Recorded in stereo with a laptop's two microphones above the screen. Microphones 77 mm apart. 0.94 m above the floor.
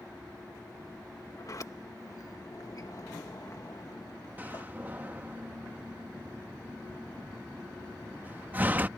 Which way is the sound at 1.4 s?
50° left (ahead or behind).